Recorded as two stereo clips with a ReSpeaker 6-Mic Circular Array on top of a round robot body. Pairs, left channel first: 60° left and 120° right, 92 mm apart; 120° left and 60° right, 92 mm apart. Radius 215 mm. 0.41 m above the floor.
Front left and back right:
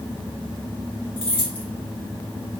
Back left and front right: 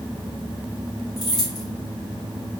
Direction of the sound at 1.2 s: 75° left.